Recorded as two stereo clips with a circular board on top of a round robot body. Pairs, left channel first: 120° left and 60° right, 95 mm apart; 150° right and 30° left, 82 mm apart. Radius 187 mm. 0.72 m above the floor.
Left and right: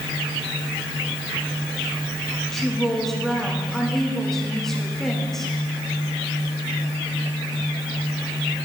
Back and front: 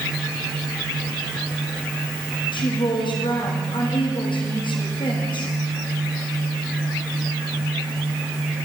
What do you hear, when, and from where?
2.5 s a woman speaking: 155° right, 1.8 m